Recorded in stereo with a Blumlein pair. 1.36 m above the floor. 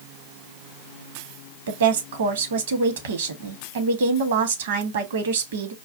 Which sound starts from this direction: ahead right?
A woman speaking, at 1.7 s.